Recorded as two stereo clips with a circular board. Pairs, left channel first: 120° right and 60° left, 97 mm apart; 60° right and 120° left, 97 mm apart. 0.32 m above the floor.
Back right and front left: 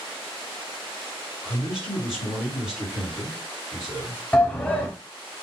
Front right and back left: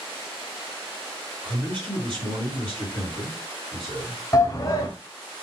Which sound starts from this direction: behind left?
A man speaking, at 1.4 s.